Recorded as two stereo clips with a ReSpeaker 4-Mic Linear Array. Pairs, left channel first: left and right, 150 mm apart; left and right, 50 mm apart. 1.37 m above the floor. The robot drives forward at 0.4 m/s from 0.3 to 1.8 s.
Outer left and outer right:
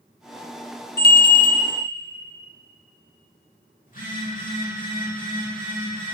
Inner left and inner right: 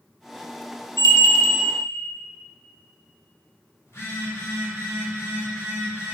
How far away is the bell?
About 0.6 m.